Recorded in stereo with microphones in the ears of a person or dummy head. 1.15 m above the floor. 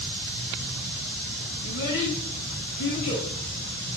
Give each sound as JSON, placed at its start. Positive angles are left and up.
{"t": 1.6, "sound": "a child speaking", "side_deg": 70, "distance_m": 3.5}